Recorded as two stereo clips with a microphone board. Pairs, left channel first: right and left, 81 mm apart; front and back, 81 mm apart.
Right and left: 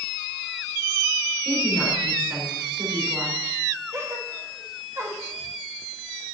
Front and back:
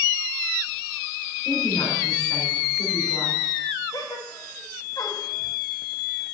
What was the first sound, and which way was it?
A woman speaking, 25° left.